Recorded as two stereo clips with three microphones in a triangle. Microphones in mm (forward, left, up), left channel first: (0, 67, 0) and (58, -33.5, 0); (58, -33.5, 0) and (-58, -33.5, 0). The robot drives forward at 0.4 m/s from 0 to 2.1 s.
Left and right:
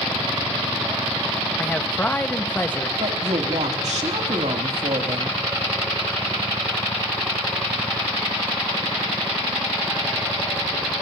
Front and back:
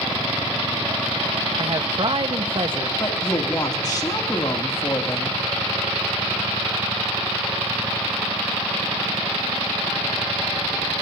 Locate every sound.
1.6 s a man speaking: 170° right, 1.0 m
3.0 s a woman speaking: 55° right, 2.5 m